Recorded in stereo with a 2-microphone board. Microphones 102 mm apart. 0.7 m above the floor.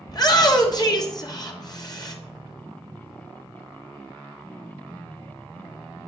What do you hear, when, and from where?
0.1 s a shout: 40° left (ahead or behind), 1.3 m